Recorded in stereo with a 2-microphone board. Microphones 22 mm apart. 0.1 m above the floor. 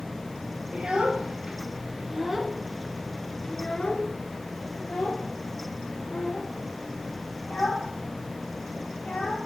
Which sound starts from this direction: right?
A child speaking, at 0.7 s.